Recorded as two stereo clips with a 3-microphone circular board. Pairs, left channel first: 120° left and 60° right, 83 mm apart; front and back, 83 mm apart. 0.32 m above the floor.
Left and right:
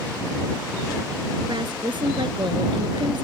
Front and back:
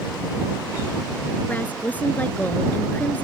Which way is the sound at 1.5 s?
70° right.